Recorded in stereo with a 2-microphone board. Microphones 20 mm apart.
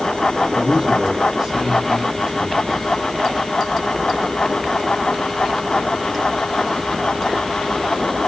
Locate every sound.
0.6 s a man speaking: 35° right (ahead or behind), 6.5 m